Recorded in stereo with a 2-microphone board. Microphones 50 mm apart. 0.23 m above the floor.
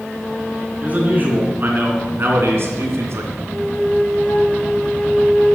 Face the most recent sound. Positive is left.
turn(degrees=45)  # may be behind; listen again after turning